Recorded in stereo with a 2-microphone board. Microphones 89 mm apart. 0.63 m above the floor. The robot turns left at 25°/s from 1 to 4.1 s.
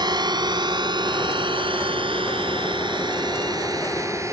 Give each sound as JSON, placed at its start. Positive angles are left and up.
{"t": 0.0, "sound": "a drone", "side_deg": -55}